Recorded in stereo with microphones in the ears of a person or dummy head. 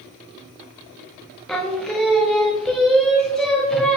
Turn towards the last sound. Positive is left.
turn(degrees=0)  # may be behind; listen again after turning